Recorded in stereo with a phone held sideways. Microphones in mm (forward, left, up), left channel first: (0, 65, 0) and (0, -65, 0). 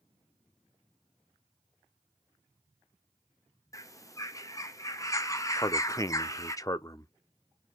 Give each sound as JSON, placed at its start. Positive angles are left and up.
{"t": 3.7, "sound": "a bird", "side_deg": 25, "distance_m": 0.7}
{"t": 5.6, "sound": "a man speaking", "side_deg": 25, "distance_m": 0.5}